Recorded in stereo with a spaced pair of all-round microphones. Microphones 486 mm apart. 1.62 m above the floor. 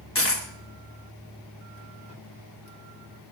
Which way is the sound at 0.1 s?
30° left (ahead or behind).